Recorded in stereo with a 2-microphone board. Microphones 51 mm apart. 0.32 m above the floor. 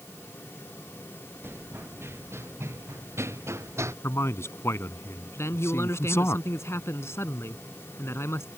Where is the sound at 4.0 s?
65° left (ahead or behind).